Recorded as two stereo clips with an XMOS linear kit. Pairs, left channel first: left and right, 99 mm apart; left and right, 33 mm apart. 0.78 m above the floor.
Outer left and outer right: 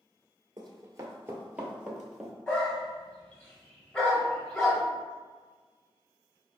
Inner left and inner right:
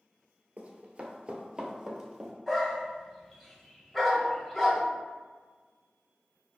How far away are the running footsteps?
About 0.9 m.